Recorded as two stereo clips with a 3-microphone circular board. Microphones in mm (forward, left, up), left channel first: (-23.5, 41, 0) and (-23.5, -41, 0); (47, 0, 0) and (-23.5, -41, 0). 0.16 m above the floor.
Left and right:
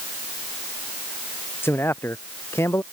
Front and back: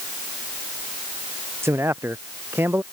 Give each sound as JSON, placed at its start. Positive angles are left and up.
{"t": 1.6, "sound": "a man speaking", "azimuth_deg": 150}